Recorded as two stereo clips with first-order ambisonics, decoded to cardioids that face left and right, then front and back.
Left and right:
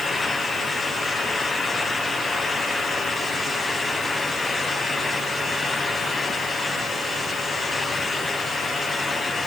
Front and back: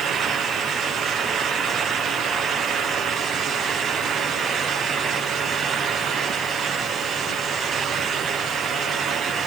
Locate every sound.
Only background noise.